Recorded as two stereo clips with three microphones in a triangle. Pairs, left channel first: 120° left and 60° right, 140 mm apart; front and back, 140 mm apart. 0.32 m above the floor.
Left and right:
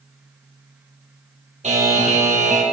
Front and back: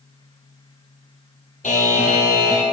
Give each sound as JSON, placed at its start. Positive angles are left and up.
{"t": 1.6, "sound": "a buzzer", "azimuth_deg": -25, "distance_m": 3.5}